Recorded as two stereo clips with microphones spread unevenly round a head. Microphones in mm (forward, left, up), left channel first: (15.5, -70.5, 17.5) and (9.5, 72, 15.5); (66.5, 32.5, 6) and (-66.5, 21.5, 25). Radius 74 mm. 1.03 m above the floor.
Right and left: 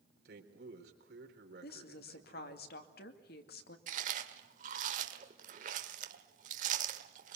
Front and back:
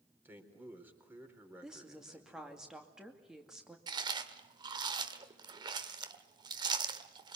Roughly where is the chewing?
Behind left.